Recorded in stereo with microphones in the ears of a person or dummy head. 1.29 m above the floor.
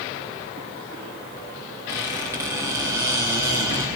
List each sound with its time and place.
1.9 s a squeak: 10° right (ahead or behind), 0.8 m